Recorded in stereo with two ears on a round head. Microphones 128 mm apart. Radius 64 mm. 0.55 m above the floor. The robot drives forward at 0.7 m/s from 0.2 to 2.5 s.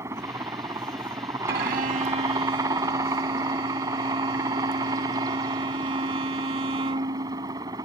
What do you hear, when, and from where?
0.0 s a helicopter: 20° right (ahead or behind); by 7.8 s 25° right (ahead or behind)
1.5 s a violin: 75° right (ahead or behind); by 7.7 s 40° right (ahead or behind)